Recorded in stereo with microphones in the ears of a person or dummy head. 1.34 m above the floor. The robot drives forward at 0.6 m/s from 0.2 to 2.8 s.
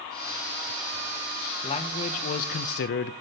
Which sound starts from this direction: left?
A man speaking, at 1.6 s.